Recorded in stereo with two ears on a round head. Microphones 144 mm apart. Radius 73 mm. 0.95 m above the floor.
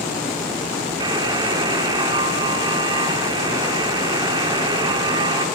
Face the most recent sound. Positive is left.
turn(degrees=-25)  # may be behind; listen again after turning